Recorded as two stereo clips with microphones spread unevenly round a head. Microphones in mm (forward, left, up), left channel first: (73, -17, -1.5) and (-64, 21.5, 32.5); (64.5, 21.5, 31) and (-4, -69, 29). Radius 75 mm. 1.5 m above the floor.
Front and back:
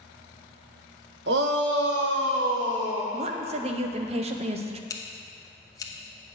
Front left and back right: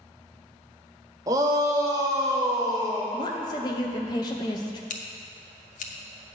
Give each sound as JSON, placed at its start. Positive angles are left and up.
{"t": 1.3, "sound": "a shout", "azimuth_deg": 170, "distance_m": 0.9}
{"t": 3.1, "sound": "a woman speaking", "azimuth_deg": 115, "distance_m": 0.7}
{"t": 4.9, "sound": "scissors", "azimuth_deg": 50, "distance_m": 0.9}